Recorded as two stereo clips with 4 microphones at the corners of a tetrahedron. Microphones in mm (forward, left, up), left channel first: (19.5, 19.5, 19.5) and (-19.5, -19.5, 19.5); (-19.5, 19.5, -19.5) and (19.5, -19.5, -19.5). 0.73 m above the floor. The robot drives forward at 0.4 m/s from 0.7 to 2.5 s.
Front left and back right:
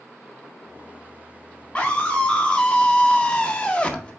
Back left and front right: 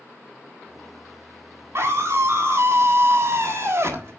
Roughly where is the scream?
Ahead.